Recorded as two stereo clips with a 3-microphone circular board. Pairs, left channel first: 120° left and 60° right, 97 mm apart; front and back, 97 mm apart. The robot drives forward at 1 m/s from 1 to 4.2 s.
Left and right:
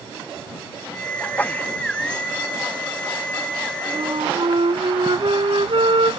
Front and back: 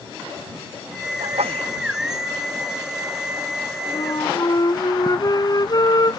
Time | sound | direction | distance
1.2 | a sneeze | 165° right | ?
3.9 | a flute | 35° right | ?